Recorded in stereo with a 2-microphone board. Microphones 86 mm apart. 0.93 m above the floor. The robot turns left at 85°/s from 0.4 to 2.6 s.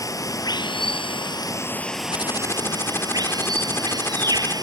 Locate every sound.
0.0 s running water: 135° left; by 4.6 s 50° right
2.1 s typing on a keyboard: 70° left; by 4.5 s 30° left